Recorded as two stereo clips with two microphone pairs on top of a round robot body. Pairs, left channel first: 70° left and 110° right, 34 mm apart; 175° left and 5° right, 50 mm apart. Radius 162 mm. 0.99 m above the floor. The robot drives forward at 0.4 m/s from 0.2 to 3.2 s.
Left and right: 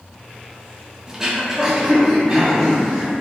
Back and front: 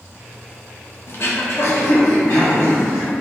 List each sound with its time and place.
1.1 s throat clearing: 175° left, 0.7 m; by 3.1 s straight behind, 1.4 m